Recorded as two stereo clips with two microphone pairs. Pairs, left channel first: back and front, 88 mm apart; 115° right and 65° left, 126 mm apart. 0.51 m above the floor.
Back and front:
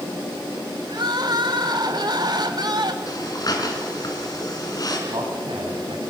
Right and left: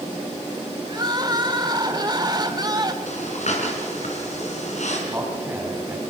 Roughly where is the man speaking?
Ahead.